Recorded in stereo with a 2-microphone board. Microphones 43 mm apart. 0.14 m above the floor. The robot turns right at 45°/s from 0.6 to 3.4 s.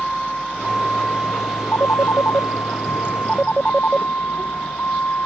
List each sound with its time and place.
0.0 s a vehicle: 10° left; by 5.3 s 135° left
1.7 s a phone ringing: 70° left (ahead or behind); by 4.1 s 25° left (ahead or behind)